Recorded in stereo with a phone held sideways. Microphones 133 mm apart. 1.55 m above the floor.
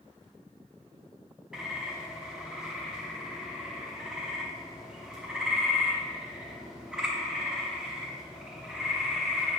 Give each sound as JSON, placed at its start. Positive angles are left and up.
{"t": 1.5, "sound": "a bird", "side_deg": -5, "distance_m": 0.7}